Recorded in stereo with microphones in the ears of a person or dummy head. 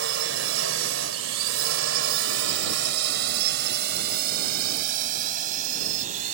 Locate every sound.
0.0 s a drone: 75° right (ahead or behind); by 6.3 s 40° right (ahead or behind)